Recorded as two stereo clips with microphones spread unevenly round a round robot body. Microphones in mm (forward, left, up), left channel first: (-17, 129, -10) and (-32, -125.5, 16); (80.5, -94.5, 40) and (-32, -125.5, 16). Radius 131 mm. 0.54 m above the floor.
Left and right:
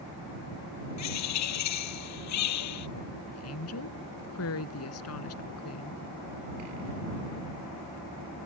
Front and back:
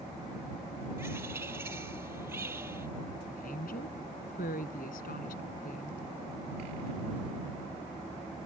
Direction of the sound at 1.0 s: 115° left.